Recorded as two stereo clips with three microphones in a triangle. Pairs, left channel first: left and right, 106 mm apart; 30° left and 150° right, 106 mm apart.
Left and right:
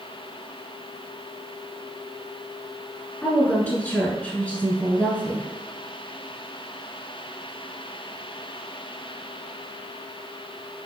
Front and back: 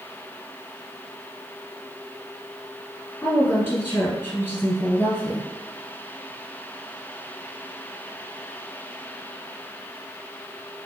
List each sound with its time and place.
3.2 s a woman speaking: 35° left, 1.1 m